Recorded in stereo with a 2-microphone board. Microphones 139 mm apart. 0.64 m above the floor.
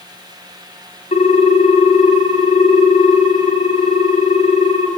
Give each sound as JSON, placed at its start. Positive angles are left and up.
{"t": 1.1, "sound": "a ringtone", "side_deg": 50, "distance_m": 0.7}